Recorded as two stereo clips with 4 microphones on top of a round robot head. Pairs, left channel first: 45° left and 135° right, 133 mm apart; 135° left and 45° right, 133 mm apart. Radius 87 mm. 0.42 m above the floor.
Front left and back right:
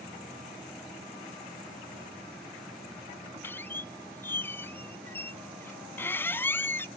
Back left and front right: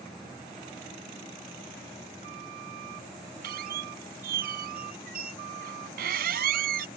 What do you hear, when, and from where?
3.4 s a squeak: 30° right